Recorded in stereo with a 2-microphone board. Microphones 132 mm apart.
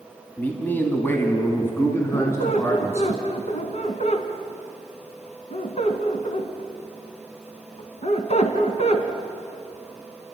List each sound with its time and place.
0.4 s a man speaking: 15° left (ahead or behind), 2.5 m; by 3.1 s 20° left (ahead or behind), 3.5 m
2.1 s a squeak: 60° left (ahead or behind), 2.0 m